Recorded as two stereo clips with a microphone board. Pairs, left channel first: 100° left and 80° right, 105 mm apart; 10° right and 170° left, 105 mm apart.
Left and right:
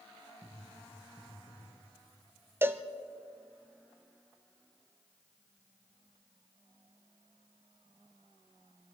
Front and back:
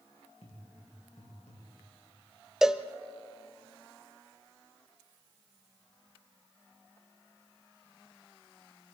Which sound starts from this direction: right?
A cowbell, at 2.6 s.